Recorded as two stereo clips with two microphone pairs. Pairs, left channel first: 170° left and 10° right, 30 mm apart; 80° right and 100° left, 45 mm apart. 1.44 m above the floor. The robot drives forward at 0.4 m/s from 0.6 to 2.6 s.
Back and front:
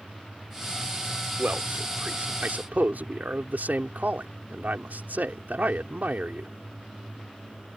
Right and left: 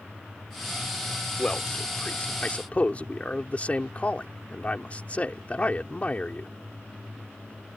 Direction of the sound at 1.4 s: 25° right.